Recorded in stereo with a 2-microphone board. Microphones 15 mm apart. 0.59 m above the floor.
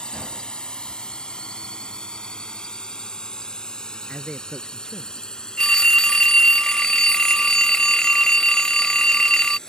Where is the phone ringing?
55° left (ahead or behind).